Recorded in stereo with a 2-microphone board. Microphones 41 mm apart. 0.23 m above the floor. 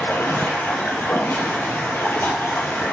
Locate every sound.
0.0 s running water: 85° left, 1.7 m